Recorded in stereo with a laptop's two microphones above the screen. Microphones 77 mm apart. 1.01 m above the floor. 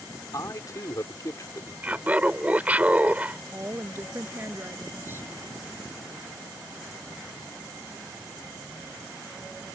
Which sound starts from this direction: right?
A woman speaking, at 3.5 s.